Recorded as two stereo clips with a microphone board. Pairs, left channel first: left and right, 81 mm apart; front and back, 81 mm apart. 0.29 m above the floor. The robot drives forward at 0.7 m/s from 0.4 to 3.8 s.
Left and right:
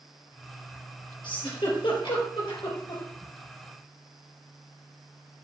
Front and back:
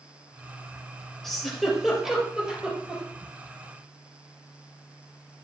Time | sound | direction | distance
1.2 | a giggle | 85° left | 3.5 m